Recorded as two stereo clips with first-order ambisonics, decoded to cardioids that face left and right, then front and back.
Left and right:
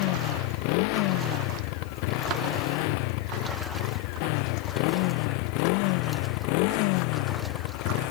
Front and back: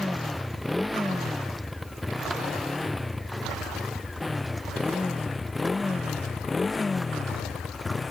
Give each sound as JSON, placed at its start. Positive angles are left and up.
{"t": 0.0, "sound": "a motorcycle", "azimuth_deg": 90}